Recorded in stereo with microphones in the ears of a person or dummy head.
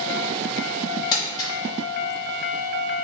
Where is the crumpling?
20° left (ahead or behind), 2.5 m.